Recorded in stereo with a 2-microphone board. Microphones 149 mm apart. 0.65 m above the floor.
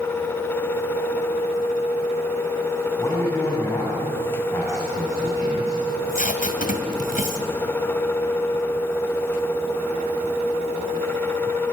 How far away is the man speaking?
About 5 m.